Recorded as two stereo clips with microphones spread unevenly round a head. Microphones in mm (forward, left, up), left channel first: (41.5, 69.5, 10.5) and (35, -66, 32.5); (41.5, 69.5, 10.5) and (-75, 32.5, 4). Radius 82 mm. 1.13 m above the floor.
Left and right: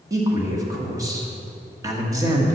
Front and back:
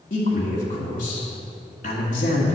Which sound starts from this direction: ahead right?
A man speaking, at 0.1 s.